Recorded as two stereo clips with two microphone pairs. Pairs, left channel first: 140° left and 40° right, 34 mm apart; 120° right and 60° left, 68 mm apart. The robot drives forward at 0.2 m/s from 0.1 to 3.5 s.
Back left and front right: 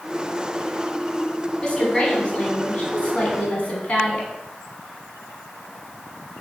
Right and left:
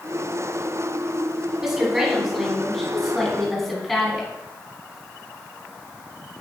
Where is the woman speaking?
130° left, 1.1 m; by 4.3 s 150° left, 1.3 m.